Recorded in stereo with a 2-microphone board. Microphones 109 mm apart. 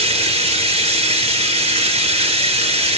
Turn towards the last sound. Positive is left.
turn(degrees=-60)  # may be behind; listen again after turning